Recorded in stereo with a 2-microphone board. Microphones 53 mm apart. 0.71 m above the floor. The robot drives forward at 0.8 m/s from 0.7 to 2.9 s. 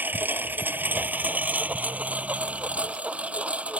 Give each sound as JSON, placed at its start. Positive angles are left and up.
{"t": 0.0, "sound": "a lawn mower", "side_deg": -35}